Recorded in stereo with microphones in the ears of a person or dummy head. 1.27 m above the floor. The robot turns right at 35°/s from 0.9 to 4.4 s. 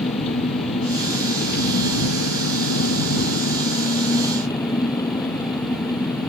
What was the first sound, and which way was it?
An engine running, 35° left.